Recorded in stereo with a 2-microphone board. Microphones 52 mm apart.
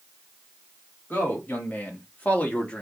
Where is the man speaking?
40° left (ahead or behind), 1.6 m; by 2.8 s 20° left (ahead or behind), 0.8 m.